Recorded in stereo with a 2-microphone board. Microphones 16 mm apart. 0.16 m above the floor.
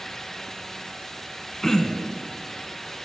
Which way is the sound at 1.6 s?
15° left (ahead or behind).